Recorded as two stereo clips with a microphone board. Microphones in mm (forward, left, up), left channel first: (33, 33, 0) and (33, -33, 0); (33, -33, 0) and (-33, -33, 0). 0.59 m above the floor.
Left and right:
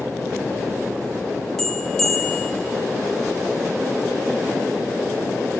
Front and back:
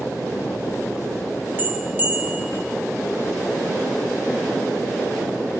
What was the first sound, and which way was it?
A bell, 165° left.